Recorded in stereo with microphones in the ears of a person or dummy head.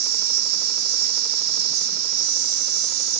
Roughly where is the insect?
Right.